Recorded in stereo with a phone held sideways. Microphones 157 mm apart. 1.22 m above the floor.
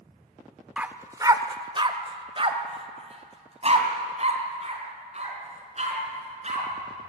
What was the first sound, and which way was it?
A dog barking, 10° right (ahead or behind).